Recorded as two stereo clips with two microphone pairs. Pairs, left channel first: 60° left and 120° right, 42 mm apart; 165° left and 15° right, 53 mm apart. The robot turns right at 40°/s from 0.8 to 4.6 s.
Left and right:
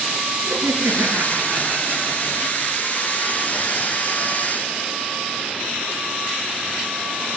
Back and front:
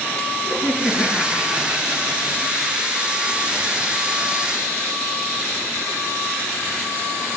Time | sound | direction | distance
0.5 | laughter | 135° right | 9 m